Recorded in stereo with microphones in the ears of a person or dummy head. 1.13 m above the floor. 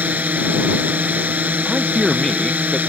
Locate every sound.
0.0 s a drone: 5° right (ahead or behind)
1.6 s a man speaking: centre (ahead or behind)